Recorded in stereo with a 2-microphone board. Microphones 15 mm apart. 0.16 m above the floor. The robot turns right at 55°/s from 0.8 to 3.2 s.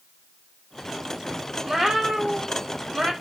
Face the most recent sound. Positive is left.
turn(degrees=-55)